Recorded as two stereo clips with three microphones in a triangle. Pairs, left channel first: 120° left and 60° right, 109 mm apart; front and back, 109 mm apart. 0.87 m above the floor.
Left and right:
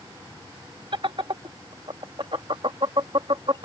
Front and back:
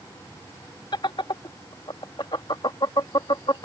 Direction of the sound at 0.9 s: 35° right.